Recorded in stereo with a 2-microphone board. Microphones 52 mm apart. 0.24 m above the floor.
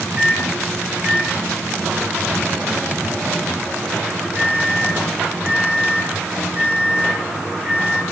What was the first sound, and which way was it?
A microwave, 25° right (ahead or behind).